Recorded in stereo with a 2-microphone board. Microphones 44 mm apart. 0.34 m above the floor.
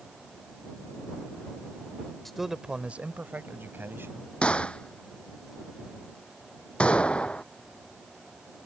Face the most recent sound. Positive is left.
turn(degrees=25)  # may be behind; listen again after turning